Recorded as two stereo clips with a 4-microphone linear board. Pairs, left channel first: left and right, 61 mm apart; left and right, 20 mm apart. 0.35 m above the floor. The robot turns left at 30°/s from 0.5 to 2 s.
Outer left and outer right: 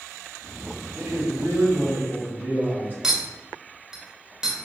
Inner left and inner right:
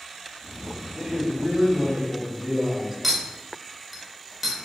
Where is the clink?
10° right (ahead or behind), 0.6 m.